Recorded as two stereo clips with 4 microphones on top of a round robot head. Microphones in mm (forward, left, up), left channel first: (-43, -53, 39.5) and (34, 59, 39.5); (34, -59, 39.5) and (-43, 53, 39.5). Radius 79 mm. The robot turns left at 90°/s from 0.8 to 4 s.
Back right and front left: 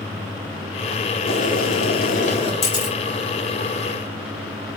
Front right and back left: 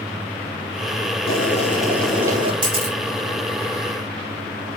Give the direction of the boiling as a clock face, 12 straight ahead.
2 o'clock.